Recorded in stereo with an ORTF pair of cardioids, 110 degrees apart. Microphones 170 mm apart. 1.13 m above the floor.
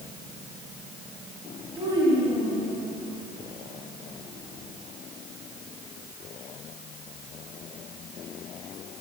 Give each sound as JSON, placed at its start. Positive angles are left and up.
{"t": 1.8, "sound": "a child speaking", "azimuth_deg": -30, "distance_m": 5.5}